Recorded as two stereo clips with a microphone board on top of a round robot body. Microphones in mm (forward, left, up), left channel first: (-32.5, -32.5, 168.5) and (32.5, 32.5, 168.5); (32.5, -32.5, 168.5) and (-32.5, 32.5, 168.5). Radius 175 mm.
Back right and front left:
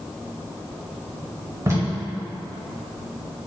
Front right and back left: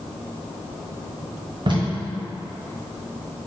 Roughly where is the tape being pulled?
Left.